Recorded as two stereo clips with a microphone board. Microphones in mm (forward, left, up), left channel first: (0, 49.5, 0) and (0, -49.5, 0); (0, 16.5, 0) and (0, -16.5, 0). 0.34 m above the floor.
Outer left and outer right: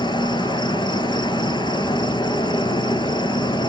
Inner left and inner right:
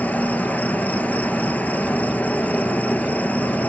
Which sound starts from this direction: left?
An insect, at 0.0 s.